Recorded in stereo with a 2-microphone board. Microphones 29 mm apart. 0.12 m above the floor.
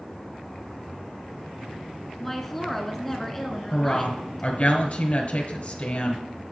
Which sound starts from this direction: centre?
A woman speaking, at 2.2 s.